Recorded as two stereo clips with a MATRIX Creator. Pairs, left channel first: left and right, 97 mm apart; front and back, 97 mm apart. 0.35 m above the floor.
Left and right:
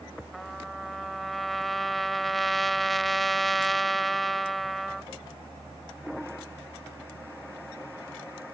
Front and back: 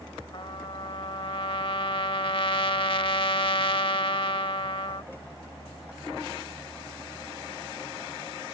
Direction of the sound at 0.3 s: Straight ahead.